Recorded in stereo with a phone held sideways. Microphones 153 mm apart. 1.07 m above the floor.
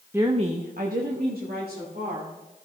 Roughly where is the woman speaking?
Centre.